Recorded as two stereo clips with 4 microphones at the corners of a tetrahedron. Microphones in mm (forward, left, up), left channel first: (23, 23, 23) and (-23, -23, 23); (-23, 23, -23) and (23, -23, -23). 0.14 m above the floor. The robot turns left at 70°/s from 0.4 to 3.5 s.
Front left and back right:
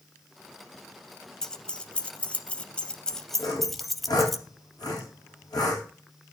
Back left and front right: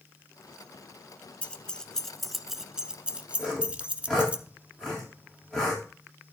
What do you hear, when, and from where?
1.4 s keys jangling: 105° left, 0.7 m; by 4.4 s 40° right, 0.7 m
3.4 s sawing: 65° left, 4.5 m; by 5.8 s 60° left, 4.5 m